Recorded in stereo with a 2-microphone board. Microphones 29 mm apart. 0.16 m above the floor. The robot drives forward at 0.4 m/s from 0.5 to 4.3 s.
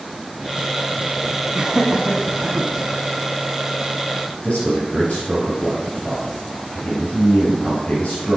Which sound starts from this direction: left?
A man speaking, at 4.4 s.